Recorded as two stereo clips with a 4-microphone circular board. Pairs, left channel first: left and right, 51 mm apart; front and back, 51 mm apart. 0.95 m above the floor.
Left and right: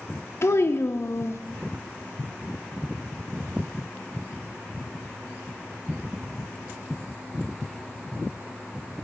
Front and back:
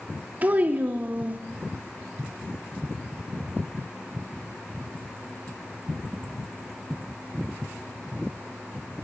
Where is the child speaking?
120° left, 0.5 m.